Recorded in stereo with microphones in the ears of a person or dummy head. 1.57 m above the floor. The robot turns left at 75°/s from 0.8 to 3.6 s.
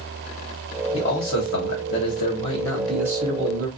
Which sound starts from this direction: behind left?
A man speaking, at 0.9 s.